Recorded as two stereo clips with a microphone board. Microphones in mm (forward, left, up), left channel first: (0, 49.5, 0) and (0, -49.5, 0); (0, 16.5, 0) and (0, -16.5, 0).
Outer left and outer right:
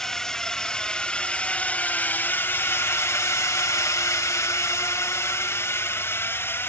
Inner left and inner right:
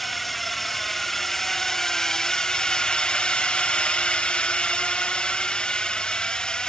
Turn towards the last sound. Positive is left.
turn(degrees=25)  # may be behind; listen again after turning